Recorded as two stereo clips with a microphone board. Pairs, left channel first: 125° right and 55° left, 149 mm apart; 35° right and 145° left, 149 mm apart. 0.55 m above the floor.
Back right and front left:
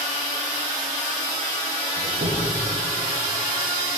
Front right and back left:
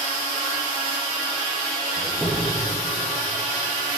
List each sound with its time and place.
2.0 s a squeak: 60° left, 10 m